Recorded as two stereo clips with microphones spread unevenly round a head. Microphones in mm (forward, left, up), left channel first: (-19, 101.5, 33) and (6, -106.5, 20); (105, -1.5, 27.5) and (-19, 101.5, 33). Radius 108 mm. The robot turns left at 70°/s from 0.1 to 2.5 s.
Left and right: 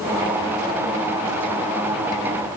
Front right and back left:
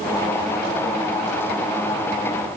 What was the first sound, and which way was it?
Only background noise.